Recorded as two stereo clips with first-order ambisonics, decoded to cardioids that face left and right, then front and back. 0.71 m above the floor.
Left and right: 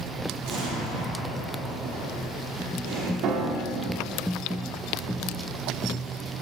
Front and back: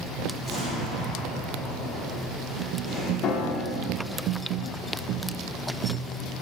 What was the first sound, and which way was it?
An explosion, 75° right.